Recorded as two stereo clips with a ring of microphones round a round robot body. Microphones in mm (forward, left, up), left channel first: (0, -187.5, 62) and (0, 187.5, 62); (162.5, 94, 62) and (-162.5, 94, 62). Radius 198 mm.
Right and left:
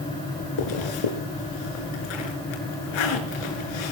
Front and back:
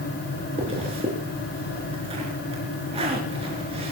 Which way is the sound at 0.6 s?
105° right.